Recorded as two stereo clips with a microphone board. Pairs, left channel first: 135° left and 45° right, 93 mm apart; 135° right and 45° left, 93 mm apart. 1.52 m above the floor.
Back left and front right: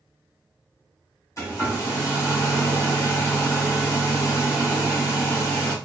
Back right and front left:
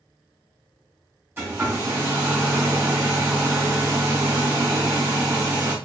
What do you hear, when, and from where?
1.4 s a hair dryer: 105° left, 1.7 m